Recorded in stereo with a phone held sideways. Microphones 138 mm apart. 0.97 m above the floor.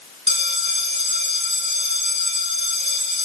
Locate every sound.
0.3 s a bell: 50° right (ahead or behind), 6.5 m